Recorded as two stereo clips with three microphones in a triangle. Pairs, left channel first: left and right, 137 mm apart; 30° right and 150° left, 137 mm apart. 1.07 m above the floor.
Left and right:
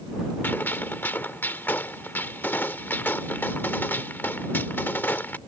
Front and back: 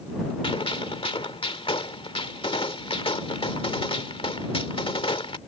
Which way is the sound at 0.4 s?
15° left.